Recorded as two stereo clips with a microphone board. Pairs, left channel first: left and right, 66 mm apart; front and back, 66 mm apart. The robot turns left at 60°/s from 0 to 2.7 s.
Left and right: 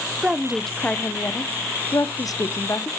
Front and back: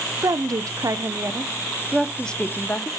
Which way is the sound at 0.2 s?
160° right.